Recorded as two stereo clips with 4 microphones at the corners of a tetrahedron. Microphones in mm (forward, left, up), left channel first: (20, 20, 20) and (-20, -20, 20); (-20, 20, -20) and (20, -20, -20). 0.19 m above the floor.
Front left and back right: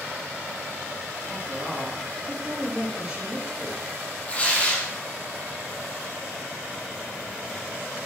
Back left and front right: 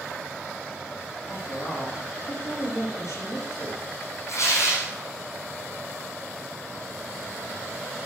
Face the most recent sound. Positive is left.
turn(degrees=110)